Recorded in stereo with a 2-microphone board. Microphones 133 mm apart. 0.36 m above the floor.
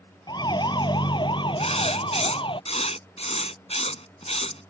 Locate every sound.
0.3 s a siren: 30° left (ahead or behind); by 2.6 s 40° left (ahead or behind)
1.6 s writing: 50° left (ahead or behind)